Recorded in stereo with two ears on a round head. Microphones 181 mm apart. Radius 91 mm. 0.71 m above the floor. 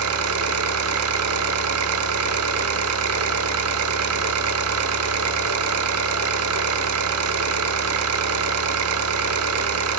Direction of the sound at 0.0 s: 80° right.